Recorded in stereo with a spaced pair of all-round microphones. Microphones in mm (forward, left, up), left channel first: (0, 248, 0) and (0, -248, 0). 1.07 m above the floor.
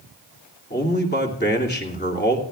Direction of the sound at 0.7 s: 20° left (ahead or behind).